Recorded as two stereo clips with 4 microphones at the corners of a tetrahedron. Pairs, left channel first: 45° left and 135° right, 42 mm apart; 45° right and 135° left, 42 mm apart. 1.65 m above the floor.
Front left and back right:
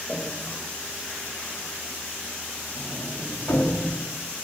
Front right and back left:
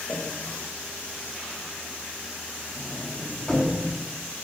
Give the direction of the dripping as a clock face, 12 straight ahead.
1 o'clock.